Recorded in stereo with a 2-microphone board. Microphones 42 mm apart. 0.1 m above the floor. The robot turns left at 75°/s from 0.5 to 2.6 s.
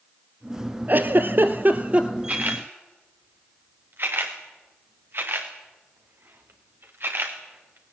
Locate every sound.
0.9 s a giggle: 60° right, 1.3 m; by 2.1 s 155° right, 1.3 m
2.3 s a camera shutter: 40° right (ahead or behind), 3.5 m; by 7.9 s 65° right (ahead or behind), 3.5 m